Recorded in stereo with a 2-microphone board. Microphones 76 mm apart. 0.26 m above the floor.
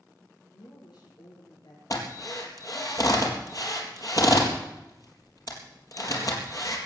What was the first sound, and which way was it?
A woman speaking, 75° left (ahead or behind).